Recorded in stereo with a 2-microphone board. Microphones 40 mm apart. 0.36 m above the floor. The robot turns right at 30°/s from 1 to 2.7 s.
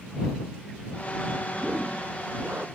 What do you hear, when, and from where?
1.5 s a whoosh: 150° right; by 2.7 s 115° right